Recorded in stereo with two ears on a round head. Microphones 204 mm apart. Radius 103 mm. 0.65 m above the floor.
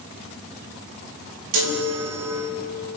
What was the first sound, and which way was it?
A chime, 75° right (ahead or behind).